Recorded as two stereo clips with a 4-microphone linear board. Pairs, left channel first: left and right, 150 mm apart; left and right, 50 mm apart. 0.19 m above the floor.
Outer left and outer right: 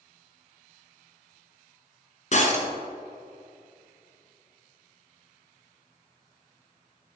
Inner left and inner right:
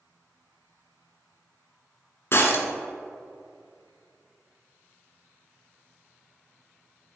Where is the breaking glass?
50° left (ahead or behind), 1.3 m.